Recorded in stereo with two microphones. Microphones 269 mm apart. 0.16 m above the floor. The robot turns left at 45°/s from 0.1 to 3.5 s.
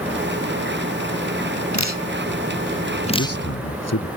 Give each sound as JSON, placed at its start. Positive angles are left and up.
{"t": 1.7, "sound": "dripping", "side_deg": 85}
{"t": 3.2, "sound": "a man speaking", "side_deg": 55}